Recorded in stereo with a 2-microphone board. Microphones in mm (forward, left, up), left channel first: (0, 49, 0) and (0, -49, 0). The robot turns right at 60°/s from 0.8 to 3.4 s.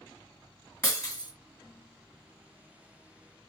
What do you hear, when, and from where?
0.8 s breaking glass: 30° left (ahead or behind), 2 m; by 1.3 s 45° left (ahead or behind), 2 m